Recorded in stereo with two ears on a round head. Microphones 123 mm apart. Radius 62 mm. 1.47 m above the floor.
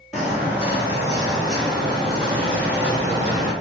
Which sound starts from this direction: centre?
Footsteps, at 0.1 s.